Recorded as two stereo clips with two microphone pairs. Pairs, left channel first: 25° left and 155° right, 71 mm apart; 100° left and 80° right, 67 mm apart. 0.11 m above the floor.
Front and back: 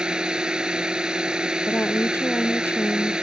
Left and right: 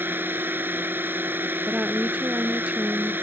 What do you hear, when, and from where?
0.0 s a drone: 90° right
1.7 s a woman speaking: 20° right